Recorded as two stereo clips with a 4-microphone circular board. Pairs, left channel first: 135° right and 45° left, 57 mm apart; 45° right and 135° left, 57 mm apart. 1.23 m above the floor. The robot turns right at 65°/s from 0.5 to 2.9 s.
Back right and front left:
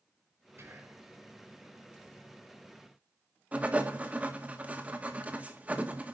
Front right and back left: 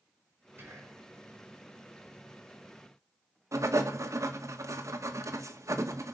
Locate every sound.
0.6 s whispering: 85° left, 6.5 m; by 1.1 s 115° left, 6.5 m
3.5 s writing: 110° left, 1.7 m